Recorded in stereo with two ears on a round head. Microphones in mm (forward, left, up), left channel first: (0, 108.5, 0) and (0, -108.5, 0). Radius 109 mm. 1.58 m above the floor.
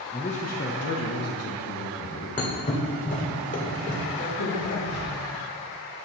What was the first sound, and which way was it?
A man speaking, 20° left (ahead or behind).